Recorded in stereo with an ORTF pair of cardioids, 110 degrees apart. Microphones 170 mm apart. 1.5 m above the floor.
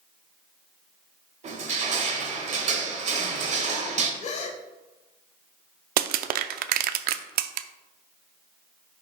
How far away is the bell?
No bell in this recording.